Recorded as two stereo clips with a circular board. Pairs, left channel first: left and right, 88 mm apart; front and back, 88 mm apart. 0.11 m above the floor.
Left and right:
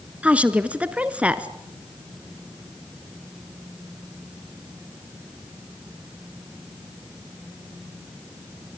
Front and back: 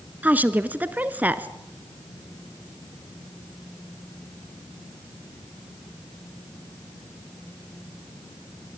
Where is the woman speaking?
140° right, 1.1 m.